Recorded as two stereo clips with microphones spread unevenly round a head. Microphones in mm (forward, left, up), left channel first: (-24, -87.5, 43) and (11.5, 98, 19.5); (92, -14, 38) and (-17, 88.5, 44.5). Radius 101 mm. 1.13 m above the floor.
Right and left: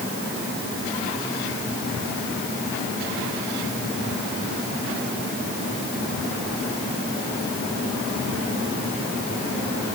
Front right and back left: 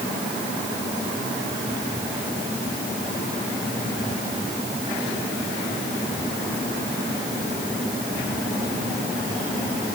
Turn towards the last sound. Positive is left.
No sound to turn to.